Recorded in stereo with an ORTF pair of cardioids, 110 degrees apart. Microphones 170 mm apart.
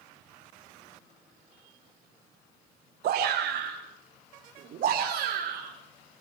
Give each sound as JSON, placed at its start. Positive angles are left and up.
{"t": 3.0, "sound": "a shout", "azimuth_deg": -70, "distance_m": 3.5}